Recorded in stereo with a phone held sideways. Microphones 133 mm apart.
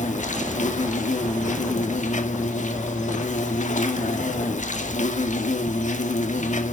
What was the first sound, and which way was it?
An insect, 65° left (ahead or behind).